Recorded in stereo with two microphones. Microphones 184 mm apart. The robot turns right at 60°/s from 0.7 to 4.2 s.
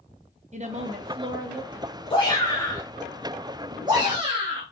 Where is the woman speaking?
75° right, 0.8 m; by 2.0 s 5° left, 0.8 m.